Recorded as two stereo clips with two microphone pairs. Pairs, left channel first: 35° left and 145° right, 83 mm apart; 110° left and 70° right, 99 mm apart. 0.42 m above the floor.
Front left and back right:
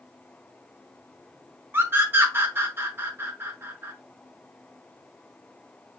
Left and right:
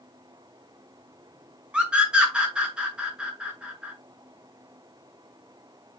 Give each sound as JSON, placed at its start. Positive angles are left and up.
{"t": 1.7, "sound": "a scream", "azimuth_deg": -140, "distance_m": 0.9}